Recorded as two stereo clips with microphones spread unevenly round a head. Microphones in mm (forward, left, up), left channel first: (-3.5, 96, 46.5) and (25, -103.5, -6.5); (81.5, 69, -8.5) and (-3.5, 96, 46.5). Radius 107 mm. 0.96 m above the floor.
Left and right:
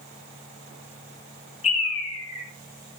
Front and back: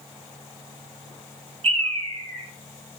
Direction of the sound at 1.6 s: 160° left.